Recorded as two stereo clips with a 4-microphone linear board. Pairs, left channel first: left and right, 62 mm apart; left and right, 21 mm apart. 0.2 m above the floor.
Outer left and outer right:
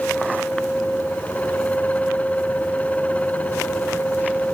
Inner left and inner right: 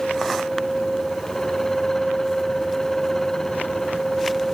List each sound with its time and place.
Only background noise.